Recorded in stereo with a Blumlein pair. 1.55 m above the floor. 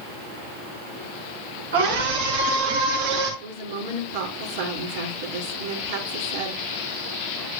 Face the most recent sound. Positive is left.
turn(degrees=-60)